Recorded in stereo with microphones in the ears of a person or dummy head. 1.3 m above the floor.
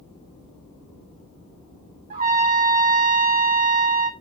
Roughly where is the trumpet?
Right.